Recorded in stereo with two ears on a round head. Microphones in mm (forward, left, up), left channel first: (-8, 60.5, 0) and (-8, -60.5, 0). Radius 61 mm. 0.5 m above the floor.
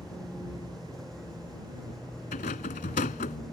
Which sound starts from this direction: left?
A rattle, at 2.3 s.